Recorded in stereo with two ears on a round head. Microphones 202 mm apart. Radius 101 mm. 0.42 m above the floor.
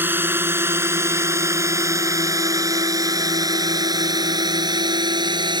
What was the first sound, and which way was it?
A drone, 10° right (ahead or behind).